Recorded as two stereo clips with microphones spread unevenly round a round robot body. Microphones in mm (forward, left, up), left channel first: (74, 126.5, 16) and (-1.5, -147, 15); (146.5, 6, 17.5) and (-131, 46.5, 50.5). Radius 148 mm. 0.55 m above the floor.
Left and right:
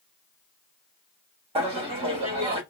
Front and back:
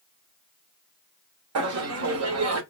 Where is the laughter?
170° right, 1.1 m.